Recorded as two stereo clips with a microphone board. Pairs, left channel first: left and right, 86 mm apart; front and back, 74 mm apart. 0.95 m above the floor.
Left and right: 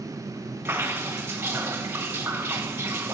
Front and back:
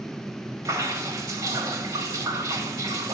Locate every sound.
0.7 s dripping: 150° right, 1.5 m